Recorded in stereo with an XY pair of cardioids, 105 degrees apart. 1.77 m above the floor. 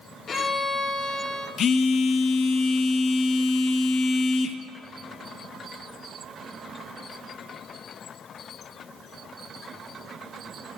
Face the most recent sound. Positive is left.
turn(degrees=60)